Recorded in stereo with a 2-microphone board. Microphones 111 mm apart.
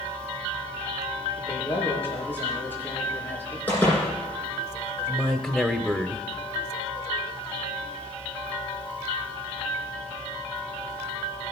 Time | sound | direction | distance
1.4 | a man speaking | 15° left (ahead or behind) | 5.5 m
3.7 | a door slam | 15° left (ahead or behind) | 9 m
5.1 | a man speaking | 5° right (ahead or behind) | 0.9 m